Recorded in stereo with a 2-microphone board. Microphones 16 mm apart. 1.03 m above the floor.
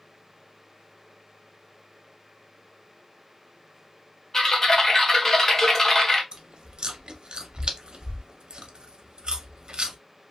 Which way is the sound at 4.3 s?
30° left (ahead or behind).